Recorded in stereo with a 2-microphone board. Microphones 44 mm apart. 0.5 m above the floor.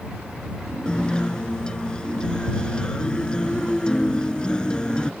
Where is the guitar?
20° left (ahead or behind).